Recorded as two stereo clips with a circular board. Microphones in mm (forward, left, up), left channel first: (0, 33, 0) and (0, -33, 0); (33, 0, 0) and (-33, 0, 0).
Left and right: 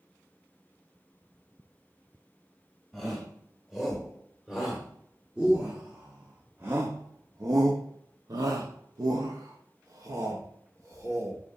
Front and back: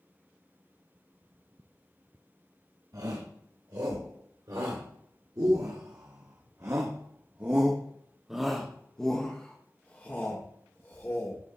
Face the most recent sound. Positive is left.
turn(degrees=-50)